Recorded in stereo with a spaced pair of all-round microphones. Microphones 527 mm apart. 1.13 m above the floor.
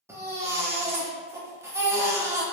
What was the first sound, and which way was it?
A baby crying, 5° right (ahead or behind).